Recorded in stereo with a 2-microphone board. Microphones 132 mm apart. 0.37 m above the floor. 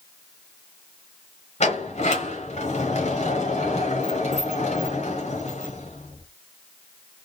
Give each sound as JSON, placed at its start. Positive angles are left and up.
{"t": 1.6, "sound": "a sliding door", "side_deg": 55, "distance_m": 1.4}